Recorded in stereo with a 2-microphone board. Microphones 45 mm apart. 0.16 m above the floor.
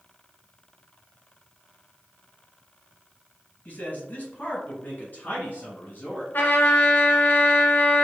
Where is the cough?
No cough in this recording.